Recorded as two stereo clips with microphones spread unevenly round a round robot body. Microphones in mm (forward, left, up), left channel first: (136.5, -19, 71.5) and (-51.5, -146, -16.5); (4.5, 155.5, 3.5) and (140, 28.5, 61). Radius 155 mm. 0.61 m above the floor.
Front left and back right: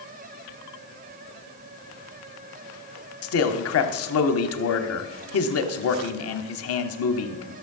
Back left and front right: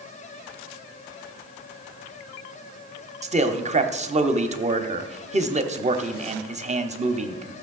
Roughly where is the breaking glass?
No breaking glass in this recording.